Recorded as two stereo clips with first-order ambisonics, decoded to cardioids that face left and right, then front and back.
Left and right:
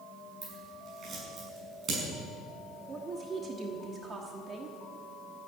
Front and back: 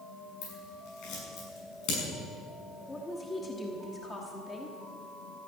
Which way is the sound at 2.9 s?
60° right.